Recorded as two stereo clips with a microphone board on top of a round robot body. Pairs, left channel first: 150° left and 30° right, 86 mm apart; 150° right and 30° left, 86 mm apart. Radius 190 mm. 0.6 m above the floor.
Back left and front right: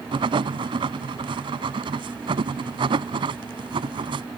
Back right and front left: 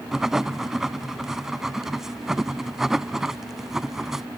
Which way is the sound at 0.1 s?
55° right.